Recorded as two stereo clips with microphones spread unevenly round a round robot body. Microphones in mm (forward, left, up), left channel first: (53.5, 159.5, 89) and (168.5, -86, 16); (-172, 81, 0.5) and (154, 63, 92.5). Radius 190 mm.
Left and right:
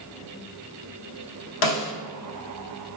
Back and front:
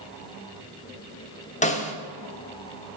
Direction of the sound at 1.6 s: 130° left.